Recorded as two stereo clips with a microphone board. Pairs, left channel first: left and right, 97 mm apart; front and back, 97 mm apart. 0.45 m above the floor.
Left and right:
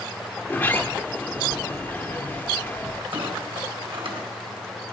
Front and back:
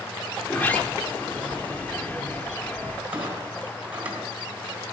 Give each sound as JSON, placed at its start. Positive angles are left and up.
{"t": 0.4, "sound": "a sliding door", "azimuth_deg": 50, "distance_m": 0.7}
{"t": 3.1, "sound": "a clunk", "azimuth_deg": -105, "distance_m": 2.5}